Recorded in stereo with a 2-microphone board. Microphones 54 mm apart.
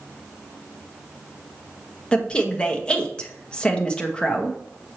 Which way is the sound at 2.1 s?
15° left (ahead or behind).